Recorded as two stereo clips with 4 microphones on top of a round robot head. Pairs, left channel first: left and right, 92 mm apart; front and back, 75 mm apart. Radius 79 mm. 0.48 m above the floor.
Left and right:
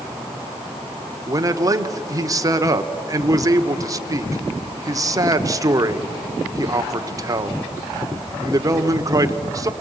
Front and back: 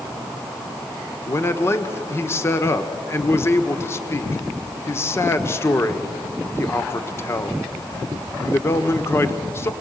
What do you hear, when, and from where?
1.3 s a man speaking: 45° right, 1.2 m